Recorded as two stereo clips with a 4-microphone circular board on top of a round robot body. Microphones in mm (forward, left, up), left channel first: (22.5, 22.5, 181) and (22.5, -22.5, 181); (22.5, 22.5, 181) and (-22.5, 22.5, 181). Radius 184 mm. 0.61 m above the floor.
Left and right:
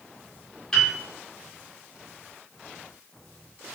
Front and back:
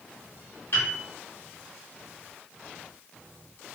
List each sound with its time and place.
0.7 s a piano: 10° left, 1.3 m